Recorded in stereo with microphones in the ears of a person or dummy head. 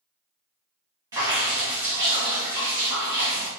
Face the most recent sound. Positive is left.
turn(degrees=-20)  # may be behind; listen again after turning